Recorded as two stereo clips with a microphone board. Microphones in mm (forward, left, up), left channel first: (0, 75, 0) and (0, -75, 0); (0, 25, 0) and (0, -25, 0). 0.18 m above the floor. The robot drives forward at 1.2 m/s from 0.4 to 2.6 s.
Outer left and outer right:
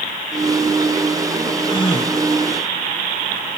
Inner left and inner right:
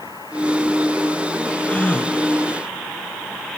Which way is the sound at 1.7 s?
30° left (ahead or behind).